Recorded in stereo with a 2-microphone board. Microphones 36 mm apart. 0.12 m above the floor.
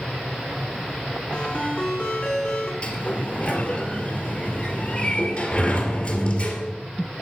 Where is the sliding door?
25° left (ahead or behind), 2.5 m.